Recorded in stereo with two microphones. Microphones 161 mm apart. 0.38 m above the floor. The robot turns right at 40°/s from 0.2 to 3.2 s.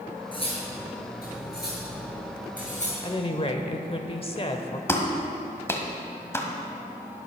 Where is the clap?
15° left (ahead or behind), 1.5 m.